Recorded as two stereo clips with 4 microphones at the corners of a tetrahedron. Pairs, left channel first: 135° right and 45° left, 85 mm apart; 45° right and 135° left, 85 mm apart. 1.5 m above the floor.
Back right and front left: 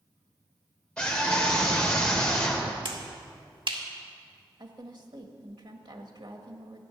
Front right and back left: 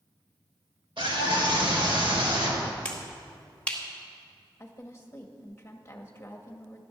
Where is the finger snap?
30° left, 2 m.